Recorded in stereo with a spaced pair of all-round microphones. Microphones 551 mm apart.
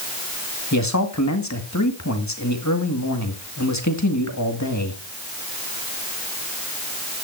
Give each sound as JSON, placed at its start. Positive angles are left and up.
{"t": 0.7, "sound": "a man speaking", "side_deg": 30, "distance_m": 2.0}